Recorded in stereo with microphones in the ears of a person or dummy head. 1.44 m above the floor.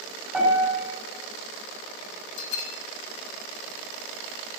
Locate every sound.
0.3 s a piano: 5° left (ahead or behind), 6 m
2.4 s a bell: 85° left, 1.0 m